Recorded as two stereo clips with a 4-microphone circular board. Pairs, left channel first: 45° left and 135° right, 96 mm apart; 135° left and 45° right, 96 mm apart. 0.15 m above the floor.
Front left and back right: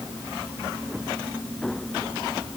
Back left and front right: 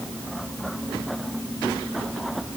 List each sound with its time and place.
Only background noise.